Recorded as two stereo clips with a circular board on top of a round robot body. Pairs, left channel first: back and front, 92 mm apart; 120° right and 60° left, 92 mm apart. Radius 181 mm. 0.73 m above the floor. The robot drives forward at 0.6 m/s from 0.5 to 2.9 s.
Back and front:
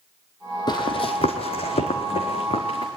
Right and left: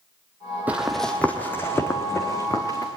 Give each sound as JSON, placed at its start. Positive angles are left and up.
{"t": 0.7, "sound": "running footsteps", "azimuth_deg": 135, "distance_m": 1.2}